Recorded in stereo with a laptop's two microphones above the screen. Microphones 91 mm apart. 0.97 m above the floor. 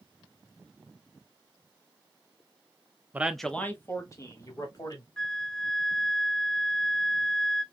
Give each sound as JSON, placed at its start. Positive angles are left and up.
{"t": 3.1, "sound": "a man speaking", "side_deg": -20, "distance_m": 0.8}
{"t": 5.2, "sound": "a flute", "side_deg": 10, "distance_m": 0.7}